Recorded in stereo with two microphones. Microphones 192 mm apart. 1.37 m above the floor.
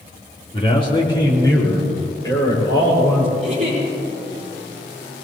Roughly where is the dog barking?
I don't hear a dog barking.